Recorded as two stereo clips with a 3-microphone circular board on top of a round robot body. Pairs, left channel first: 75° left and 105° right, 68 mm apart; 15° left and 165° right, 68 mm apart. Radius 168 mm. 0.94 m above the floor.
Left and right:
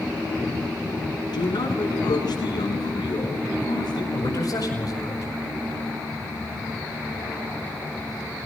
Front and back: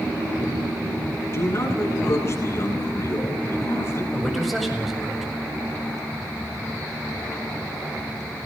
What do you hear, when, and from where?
1.3 s a man speaking: 70° left, 8.5 m
4.1 s a man speaking: 110° left, 8 m